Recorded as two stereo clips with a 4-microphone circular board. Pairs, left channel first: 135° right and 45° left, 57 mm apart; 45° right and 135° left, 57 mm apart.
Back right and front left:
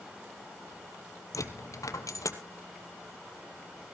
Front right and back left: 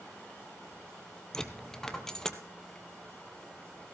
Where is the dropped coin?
125° right, 1.1 m.